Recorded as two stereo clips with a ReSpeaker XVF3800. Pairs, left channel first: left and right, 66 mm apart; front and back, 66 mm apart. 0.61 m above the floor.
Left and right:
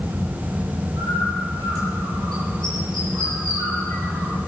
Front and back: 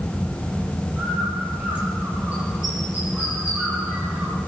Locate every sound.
1.0 s a bird: 110° right, 9.5 m